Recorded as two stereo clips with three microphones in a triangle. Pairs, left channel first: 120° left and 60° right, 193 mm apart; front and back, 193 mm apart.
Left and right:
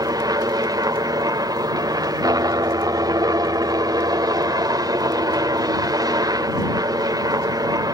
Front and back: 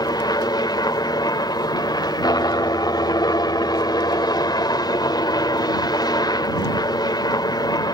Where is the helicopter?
25° right.